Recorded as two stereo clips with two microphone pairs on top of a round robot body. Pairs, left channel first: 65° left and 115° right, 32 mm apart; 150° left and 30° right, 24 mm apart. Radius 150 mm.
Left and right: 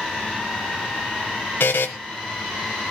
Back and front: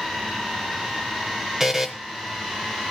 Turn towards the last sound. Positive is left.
turn(degrees=55)